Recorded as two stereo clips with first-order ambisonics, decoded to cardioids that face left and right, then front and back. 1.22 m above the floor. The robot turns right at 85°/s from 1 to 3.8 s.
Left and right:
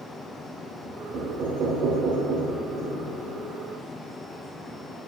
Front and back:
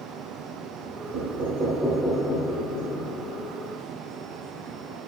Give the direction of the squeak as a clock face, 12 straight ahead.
I don't hear a squeak.